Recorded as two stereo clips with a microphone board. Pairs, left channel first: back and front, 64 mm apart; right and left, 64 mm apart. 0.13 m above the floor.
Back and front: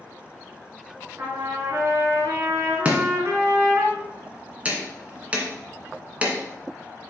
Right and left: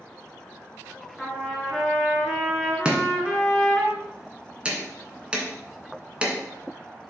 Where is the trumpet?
10° right, 2 m.